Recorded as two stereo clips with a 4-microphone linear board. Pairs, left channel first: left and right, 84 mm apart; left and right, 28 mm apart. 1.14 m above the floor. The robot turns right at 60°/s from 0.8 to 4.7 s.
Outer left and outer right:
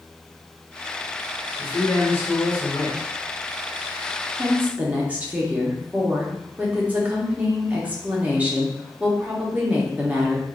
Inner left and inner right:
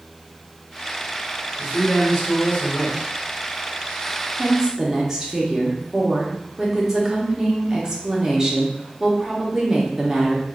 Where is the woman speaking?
35° right (ahead or behind), 1.0 m; by 10.5 s 20° right (ahead or behind), 1.0 m.